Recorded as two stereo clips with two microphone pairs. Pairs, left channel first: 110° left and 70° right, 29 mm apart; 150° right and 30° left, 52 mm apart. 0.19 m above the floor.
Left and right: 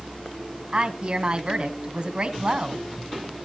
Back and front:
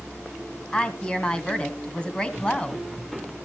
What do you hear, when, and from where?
0.7 s a woman speaking: 90° right, 1.9 m